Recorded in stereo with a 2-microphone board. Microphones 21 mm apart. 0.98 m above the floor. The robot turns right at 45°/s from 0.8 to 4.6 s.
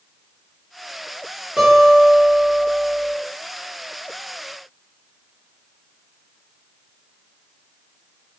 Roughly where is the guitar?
Right.